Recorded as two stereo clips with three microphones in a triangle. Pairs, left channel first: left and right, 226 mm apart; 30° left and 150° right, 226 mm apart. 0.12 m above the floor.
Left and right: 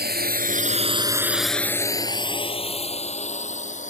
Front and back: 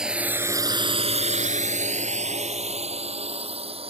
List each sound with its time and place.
0.0 s a drone: 65° right; by 3.9 s 145° left